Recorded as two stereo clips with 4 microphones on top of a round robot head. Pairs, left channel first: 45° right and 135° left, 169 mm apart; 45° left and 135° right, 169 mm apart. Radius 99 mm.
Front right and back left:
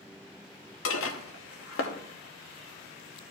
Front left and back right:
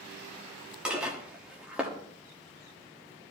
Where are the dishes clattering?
50° right, 1.0 m.